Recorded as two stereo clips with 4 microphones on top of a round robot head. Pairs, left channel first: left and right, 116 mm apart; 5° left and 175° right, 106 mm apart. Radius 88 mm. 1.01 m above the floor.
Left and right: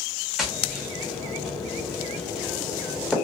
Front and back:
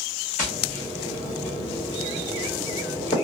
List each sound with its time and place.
0.4 s tapping: 5° right, 1.3 m